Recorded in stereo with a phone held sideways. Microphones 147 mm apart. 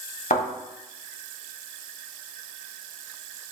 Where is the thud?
65° left (ahead or behind), 1.5 m.